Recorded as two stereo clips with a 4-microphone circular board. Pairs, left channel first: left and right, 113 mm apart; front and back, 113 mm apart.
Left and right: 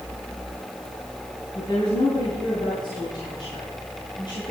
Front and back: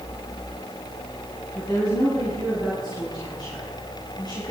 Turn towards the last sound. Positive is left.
turn(degrees=50)